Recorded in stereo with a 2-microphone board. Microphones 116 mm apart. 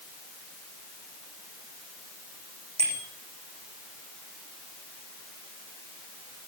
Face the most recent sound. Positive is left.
turn(degrees=-65)  # may be behind; listen again after turning